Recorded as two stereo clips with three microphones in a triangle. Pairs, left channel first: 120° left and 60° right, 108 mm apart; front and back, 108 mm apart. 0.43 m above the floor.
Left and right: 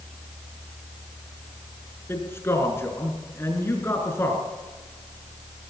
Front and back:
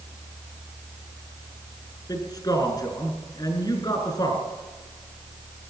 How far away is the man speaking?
About 5.5 m.